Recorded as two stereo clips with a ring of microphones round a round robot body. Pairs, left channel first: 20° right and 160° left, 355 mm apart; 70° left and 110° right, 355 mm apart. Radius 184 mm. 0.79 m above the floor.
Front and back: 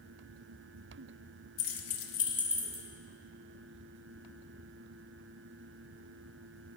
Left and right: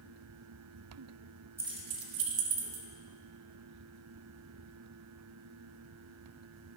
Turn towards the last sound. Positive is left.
turn(degrees=-130)